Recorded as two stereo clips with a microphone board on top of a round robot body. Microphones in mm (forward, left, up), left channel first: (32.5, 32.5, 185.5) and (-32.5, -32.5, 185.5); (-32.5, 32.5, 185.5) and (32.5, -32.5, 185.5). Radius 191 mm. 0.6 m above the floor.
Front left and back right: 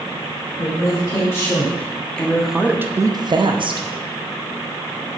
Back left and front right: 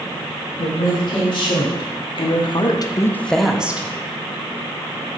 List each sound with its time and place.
0.6 s a woman speaking: 105° left, 2.5 m; by 3.9 s 115° right, 1.3 m